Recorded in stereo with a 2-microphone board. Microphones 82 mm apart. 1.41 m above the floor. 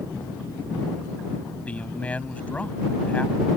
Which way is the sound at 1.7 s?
15° left (ahead or behind).